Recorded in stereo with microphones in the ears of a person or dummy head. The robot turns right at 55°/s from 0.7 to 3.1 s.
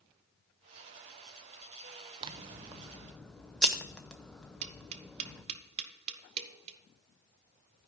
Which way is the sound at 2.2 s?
45° right.